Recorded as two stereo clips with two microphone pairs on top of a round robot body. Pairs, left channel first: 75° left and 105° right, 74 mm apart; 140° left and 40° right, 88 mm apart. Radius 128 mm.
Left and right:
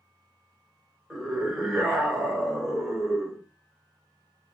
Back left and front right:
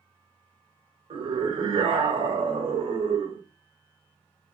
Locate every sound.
1.1 s a scream: 20° right, 2.5 m